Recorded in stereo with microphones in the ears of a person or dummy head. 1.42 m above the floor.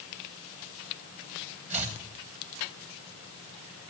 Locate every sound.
1.7 s chopping: 40° right (ahead or behind), 1.2 m